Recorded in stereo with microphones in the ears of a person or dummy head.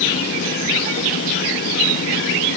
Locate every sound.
Only background noise.